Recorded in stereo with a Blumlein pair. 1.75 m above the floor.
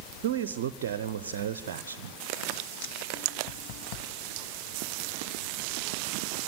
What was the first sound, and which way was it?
A man speaking, 55° right.